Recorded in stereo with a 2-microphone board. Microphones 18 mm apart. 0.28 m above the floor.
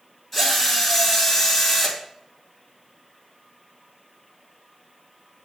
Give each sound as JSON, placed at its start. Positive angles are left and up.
{"t": 0.3, "sound": "a drill", "side_deg": 15, "distance_m": 2.5}